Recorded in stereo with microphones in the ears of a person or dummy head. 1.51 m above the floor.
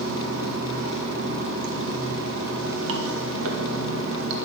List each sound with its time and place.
0.0 s running water: 80° right, 1.9 m